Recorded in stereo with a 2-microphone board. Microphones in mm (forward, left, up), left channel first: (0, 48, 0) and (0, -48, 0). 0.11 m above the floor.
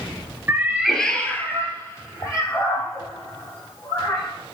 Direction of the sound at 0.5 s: 25° right (ahead or behind).